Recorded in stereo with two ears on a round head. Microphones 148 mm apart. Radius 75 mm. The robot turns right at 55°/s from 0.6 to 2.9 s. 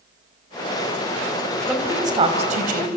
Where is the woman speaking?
5° right (ahead or behind), 3.5 m; by 3.0 s 65° right (ahead or behind), 3.5 m.